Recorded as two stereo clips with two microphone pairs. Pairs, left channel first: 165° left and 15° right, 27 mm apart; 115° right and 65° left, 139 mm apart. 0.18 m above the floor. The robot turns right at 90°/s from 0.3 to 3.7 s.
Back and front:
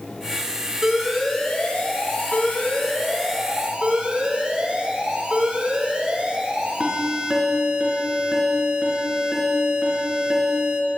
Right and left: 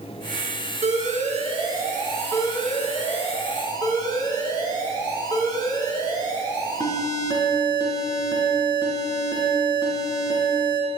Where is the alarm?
40° left, 3.5 m; by 10.8 s 60° right, 3.5 m.